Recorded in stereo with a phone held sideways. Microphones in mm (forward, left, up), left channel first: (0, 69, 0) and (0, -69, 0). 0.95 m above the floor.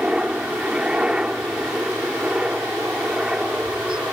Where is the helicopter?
5° right (ahead or behind).